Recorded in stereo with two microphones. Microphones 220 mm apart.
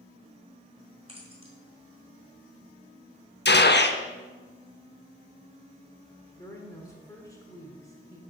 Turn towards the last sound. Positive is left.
turn(degrees=15)  # may be behind; listen again after turning